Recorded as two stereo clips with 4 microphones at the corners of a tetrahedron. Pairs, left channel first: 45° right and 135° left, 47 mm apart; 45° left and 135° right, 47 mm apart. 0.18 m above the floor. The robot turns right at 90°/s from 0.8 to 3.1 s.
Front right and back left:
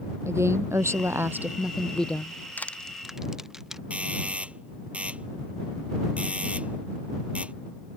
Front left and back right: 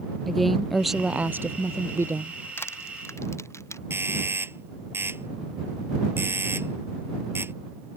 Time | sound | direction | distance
0.3 | a woman speaking | 130° left | ?
2.6 | crushing | 5° left | ?
3.9 | a doorbell | 165° right | ?